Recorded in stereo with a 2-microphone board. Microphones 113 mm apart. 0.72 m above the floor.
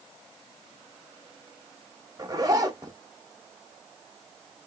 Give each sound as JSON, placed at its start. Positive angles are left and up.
{"t": 2.2, "sound": "a zipper", "side_deg": -35, "distance_m": 0.5}